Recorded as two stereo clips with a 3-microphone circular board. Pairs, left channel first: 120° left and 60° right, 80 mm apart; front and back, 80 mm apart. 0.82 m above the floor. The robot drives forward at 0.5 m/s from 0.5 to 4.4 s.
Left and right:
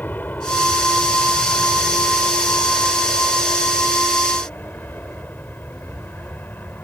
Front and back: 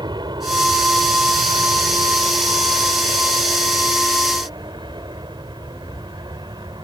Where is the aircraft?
175° right.